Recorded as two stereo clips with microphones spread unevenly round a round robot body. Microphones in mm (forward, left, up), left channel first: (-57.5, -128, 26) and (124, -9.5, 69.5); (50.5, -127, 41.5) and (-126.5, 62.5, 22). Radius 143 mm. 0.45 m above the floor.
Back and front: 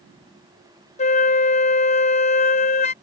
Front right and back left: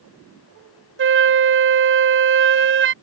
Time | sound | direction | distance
1.0 | a flute | 165° left | ?